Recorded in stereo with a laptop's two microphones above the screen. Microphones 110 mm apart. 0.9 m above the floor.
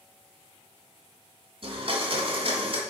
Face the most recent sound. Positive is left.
turn(degrees=-55)  # may be behind; listen again after turning